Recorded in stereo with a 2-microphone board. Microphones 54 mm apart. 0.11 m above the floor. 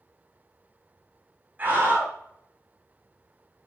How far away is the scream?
About 5.5 m.